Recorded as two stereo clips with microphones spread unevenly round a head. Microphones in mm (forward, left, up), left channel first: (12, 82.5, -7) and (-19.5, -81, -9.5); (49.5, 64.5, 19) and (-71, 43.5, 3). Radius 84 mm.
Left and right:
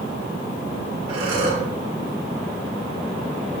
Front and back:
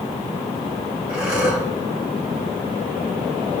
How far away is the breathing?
About 2 m.